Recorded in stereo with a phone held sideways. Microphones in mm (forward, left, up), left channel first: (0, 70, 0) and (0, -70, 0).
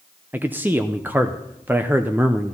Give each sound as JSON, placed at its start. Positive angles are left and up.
{"t": 0.3, "sound": "a man speaking", "side_deg": -15, "distance_m": 0.6}